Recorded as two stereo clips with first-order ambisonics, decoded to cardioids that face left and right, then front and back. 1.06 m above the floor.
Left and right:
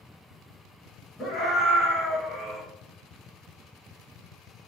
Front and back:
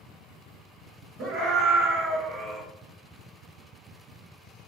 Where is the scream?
160° left, 1.5 m; by 2.6 s 150° left, 0.8 m.